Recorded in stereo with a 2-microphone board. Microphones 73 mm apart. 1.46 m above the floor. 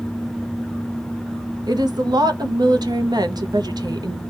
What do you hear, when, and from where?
1.7 s a woman speaking: 70° right (ahead or behind), 0.6 m